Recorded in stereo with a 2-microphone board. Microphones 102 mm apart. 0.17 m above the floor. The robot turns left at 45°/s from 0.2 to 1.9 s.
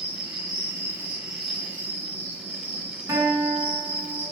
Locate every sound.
0.0 s an insect: 125° right, 1.4 m; by 4.3 s 160° left, 1.4 m
3.1 s a guitar: 35° right (ahead or behind), 2 m